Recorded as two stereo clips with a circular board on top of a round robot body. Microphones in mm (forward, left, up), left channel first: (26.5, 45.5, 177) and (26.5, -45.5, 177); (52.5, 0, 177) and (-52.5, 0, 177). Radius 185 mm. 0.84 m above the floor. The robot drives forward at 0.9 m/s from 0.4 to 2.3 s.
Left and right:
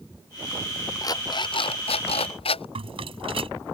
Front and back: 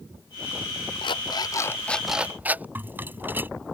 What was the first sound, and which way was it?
An alarm clock, 40° left.